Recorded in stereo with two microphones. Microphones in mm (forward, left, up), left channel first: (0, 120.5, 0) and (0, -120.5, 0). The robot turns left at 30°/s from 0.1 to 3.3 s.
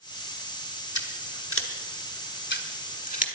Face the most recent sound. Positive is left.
turn(degrees=30)  # may be behind; listen again after turning